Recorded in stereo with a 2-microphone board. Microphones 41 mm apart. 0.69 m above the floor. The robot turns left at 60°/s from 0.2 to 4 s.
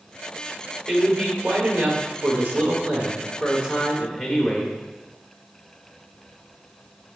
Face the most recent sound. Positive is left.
turn(degrees=175)